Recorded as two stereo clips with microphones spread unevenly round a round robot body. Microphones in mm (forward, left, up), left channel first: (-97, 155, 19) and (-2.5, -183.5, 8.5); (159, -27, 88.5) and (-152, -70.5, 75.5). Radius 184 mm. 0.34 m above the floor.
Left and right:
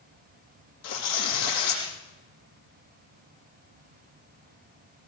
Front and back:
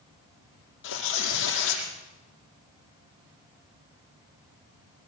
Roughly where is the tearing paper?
Ahead left.